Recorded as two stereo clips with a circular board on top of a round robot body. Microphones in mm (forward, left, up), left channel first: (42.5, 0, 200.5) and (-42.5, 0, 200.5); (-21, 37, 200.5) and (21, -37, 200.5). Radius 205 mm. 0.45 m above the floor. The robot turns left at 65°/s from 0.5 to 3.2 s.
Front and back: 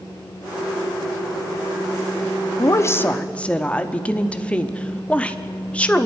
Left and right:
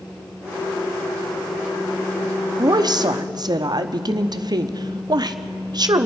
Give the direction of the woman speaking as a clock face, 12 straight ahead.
1 o'clock.